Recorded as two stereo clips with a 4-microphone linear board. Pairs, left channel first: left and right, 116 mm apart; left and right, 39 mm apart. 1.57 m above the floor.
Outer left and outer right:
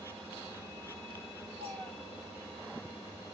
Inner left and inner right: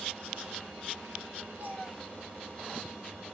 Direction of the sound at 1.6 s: 60° right (ahead or behind).